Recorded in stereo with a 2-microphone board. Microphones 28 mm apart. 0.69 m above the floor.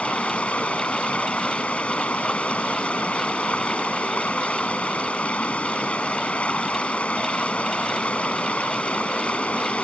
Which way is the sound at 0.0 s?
50° left (ahead or behind).